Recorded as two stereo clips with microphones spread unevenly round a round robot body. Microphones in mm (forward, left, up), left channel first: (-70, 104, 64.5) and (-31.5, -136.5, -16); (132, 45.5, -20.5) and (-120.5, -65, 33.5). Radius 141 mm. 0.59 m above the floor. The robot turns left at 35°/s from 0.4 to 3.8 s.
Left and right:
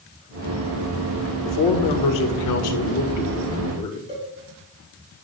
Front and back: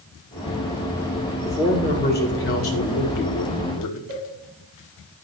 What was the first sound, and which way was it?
A man speaking, 100° left.